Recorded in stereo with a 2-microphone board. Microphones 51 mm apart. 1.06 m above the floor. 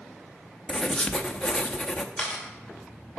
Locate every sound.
0.7 s writing: 15° left (ahead or behind), 0.7 m
2.2 s a camera shutter: 15° left (ahead or behind), 2.5 m